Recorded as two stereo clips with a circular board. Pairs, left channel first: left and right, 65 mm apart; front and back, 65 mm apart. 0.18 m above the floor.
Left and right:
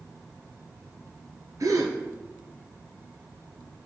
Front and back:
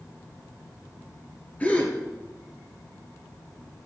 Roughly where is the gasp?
Ahead right.